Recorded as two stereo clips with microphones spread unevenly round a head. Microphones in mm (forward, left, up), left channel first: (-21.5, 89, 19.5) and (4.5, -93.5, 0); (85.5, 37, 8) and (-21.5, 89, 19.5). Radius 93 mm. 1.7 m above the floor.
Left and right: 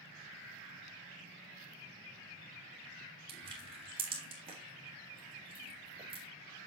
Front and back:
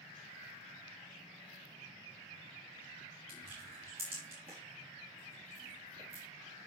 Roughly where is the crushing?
Behind right.